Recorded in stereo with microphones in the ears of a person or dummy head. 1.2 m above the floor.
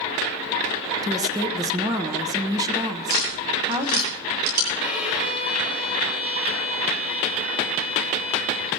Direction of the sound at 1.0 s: 20° right (ahead or behind).